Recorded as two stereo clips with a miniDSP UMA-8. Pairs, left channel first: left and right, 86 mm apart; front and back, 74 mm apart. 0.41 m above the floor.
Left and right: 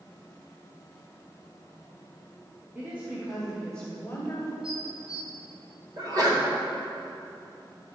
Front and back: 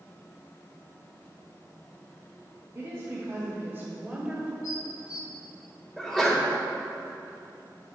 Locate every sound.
2.8 s a woman speaking: 145° right, 1.4 m; by 4.5 s 110° left, 1.3 m
4.6 s dishes clattering: 10° right, 0.9 m
6.0 s a sneeze: 85° right, 1.9 m